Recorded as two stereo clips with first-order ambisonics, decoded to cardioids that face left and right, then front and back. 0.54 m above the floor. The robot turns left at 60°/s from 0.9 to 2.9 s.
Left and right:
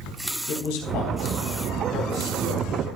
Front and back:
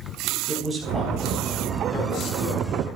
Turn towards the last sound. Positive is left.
turn(degrees=-15)